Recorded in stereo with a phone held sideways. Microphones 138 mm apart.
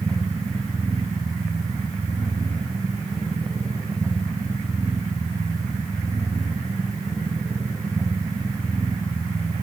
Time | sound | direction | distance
0.0 | a machine running | 25° right (ahead or behind) | 3 m